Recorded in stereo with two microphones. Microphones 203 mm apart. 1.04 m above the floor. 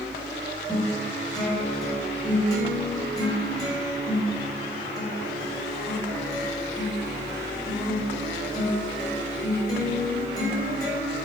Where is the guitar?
20° left (ahead or behind), 3.5 m.